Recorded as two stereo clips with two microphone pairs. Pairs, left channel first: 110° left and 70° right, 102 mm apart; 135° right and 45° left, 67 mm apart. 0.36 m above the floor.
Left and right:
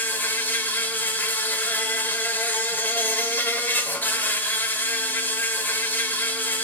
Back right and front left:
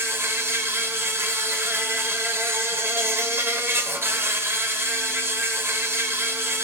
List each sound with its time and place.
0.0 s an insect: 55° left, 1.2 m